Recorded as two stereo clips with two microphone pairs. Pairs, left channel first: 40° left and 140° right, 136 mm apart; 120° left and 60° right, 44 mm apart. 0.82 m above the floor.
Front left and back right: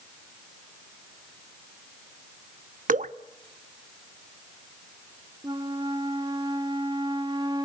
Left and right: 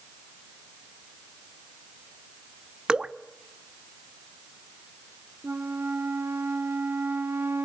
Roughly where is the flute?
Right.